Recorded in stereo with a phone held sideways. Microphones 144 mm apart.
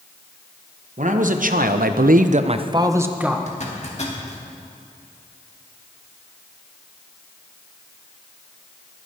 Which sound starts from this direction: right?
A man speaking, at 1.0 s.